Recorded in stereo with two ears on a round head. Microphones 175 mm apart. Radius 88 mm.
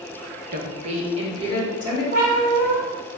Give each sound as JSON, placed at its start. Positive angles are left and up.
{"t": 0.5, "sound": "a woman speaking", "side_deg": -45, "distance_m": 0.6}
{"t": 2.1, "sound": "a cat meowing", "side_deg": -40, "distance_m": 1.8}